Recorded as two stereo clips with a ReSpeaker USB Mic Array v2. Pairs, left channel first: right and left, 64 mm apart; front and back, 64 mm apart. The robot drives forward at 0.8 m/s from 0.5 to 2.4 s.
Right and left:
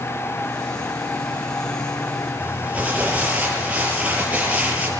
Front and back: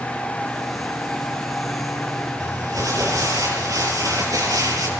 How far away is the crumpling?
About 7 m.